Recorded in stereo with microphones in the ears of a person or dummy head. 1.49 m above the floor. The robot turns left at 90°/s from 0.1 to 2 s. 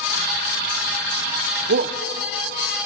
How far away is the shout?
About 0.6 m.